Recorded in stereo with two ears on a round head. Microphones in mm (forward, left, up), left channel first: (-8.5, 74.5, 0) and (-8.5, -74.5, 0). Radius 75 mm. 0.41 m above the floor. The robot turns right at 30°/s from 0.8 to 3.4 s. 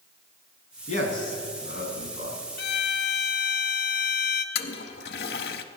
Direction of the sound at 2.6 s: 60° left (ahead or behind).